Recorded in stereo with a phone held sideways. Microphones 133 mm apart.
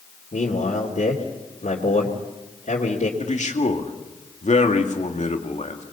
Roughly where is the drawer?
No drawer in this recording.